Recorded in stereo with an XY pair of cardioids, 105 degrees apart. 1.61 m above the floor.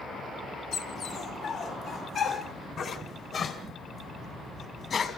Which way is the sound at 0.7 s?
65° left.